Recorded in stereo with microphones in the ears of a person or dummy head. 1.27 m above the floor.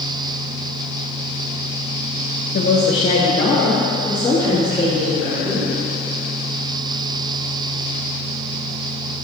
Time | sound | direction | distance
2.5 | a woman speaking | 45° left (ahead or behind) | 1.1 m